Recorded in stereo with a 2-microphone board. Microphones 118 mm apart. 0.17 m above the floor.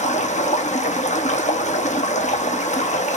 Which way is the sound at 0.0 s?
90° left.